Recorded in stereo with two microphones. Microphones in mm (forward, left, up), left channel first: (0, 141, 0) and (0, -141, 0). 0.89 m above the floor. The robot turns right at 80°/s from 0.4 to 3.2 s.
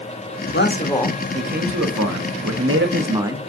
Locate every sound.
0.5 s a man speaking: 135° left, 0.9 m; by 3.4 s 10° right, 0.9 m